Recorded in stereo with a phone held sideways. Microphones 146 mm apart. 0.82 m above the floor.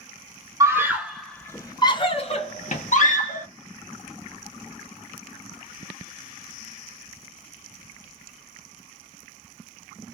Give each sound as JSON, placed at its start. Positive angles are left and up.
{"t": 0.6, "sound": "a scream", "side_deg": -20, "distance_m": 0.8}